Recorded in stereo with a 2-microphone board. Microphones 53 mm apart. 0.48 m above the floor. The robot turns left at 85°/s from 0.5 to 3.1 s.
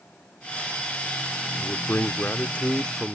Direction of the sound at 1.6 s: 135° left.